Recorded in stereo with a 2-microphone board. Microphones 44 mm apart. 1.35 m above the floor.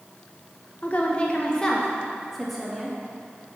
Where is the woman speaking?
35° left (ahead or behind), 0.9 m; by 3.0 s centre (ahead or behind), 2 m.